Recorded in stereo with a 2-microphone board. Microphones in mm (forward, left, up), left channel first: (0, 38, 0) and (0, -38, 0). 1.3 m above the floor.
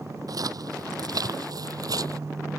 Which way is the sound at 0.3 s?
55° right (ahead or behind).